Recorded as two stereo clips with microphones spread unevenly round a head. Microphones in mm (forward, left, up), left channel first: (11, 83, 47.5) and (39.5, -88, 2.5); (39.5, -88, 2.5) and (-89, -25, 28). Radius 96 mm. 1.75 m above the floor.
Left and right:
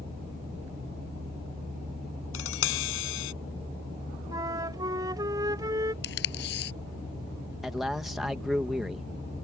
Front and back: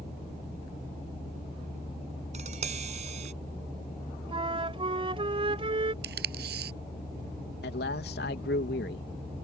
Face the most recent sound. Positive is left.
turn(degrees=10)